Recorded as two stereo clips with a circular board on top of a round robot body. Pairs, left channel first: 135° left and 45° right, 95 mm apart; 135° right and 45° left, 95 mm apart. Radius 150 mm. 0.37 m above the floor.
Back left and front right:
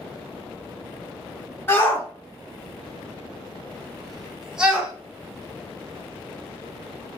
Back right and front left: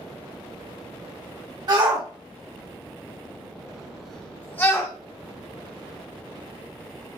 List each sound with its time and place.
1.7 s a shout: 75° left, 1.5 m; by 4.9 s 115° right, 1.0 m